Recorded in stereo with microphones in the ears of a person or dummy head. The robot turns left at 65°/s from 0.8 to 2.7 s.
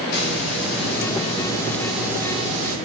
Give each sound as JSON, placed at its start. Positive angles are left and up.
{"t": 0.1, "sound": "a hiss", "azimuth_deg": 70, "distance_m": 5.5}